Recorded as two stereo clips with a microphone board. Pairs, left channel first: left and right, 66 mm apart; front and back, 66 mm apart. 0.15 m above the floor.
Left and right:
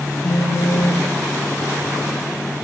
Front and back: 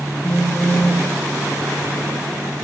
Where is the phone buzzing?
60° left, 9.5 m.